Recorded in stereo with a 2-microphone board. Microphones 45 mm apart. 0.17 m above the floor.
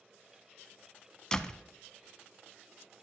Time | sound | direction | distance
1.3 | a door slam | 15° left (ahead or behind) | 0.8 m